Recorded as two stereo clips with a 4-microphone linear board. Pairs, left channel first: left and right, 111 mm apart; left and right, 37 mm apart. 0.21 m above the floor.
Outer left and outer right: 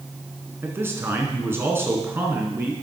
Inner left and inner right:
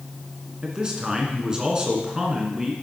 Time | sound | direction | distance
0.6 | a man speaking | 20° right (ahead or behind) | 2.5 m